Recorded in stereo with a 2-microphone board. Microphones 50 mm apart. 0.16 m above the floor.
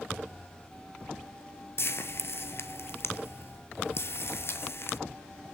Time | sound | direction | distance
1.8 | frying | 50° left (ahead or behind) | 1.0 m